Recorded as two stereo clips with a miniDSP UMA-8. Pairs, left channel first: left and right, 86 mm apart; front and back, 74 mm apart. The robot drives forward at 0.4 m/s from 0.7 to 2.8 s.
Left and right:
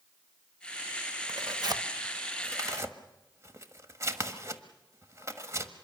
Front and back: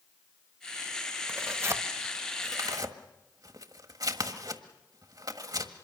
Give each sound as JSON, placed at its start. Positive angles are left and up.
{"t": 1.3, "sound": "tearing paper", "azimuth_deg": -125, "distance_m": 0.9}